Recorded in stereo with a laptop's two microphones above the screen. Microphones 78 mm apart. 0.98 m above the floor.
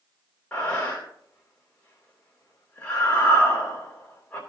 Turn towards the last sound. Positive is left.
turn(degrees=20)  # may be behind; listen again after turning